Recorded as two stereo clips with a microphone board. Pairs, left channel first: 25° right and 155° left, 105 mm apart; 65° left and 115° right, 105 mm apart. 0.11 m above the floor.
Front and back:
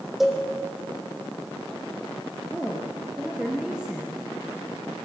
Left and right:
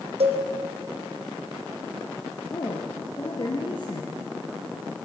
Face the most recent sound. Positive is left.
turn(degrees=75)